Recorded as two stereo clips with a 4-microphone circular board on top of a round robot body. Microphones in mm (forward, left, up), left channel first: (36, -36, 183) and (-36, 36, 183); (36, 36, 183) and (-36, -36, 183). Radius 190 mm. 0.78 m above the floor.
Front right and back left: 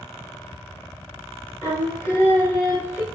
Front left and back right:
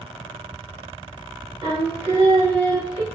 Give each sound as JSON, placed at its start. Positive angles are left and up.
{"t": 1.6, "sound": "singing", "azimuth_deg": -110, "distance_m": 2.5}